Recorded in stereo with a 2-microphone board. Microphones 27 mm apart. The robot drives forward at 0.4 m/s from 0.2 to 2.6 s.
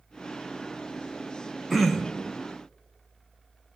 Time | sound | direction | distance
1.7 | throat clearing | 5° left (ahead or behind) | 1.0 m